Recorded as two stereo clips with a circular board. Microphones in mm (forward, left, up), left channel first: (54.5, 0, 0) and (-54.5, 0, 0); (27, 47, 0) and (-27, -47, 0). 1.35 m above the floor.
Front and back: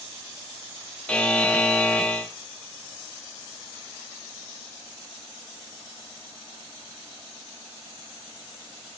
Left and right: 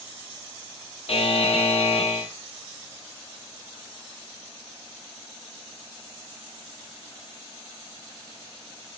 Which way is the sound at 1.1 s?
80° left.